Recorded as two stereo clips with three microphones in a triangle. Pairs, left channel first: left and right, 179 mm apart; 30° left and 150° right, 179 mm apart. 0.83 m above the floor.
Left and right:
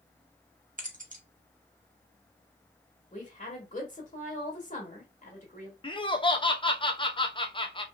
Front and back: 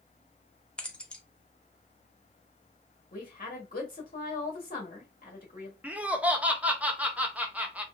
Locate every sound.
0.8 s keys jangling: 55° right, 0.8 m
3.1 s a woman speaking: 55° left, 1.5 m
5.8 s laughter: 135° left, 0.6 m